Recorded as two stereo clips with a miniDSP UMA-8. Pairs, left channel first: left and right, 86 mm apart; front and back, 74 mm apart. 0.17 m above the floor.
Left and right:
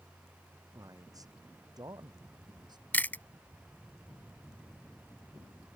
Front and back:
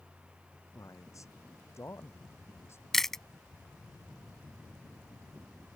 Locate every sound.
0.7 s a man speaking: 45° right; by 2.8 s 55° right
2.9 s chewing: 80° left